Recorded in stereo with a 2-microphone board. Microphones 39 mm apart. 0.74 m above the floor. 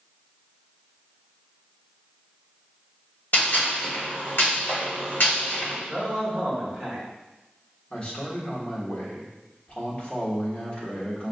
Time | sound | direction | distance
3.3 | a gunshot | 55° left (ahead or behind) | 1.4 m
5.9 | a man speaking | 30° left (ahead or behind) | 2.0 m
7.9 | a man speaking | 35° left (ahead or behind) | 1.2 m